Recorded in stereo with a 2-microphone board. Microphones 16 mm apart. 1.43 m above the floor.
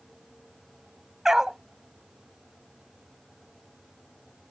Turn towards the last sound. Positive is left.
turn(degrees=-35)  # may be behind; listen again after turning